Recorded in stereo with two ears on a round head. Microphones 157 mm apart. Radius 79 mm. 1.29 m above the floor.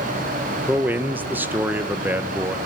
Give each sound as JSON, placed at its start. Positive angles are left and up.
{"t": 0.7, "sound": "a man speaking", "side_deg": -10, "distance_m": 1.2}